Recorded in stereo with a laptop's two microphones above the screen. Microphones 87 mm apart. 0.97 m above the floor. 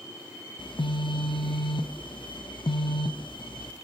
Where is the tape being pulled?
No tape being pulled in this recording.